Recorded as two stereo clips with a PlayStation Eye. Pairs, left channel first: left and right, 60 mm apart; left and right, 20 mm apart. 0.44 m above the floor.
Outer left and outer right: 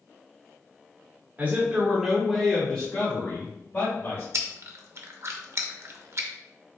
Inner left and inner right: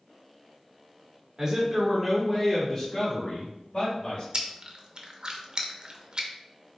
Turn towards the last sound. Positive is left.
turn(degrees=-50)  # may be behind; listen again after turning